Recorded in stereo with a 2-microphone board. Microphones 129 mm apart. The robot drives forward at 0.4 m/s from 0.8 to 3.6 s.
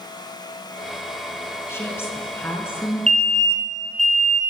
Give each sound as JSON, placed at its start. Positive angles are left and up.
{"t": 1.7, "sound": "a woman speaking", "side_deg": 20, "distance_m": 5.5}
{"t": 3.1, "sound": "an alarm", "side_deg": -60, "distance_m": 4.0}